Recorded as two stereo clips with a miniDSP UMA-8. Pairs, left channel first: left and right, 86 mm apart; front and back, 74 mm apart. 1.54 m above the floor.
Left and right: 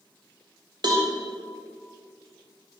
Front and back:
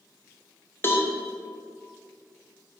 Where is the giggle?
No giggle in this recording.